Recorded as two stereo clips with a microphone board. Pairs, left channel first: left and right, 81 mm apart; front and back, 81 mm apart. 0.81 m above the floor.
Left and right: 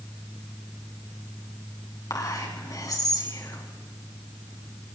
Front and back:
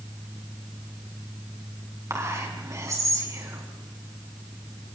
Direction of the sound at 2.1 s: 130° left.